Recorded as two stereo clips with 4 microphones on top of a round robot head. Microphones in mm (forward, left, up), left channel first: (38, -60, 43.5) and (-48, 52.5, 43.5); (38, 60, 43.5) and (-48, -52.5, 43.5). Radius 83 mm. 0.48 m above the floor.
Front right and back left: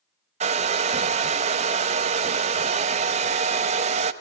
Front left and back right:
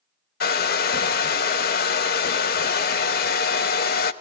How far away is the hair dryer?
About 0.6 m.